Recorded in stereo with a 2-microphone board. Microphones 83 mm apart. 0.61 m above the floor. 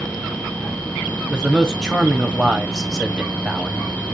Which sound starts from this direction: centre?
A man speaking, at 1.3 s.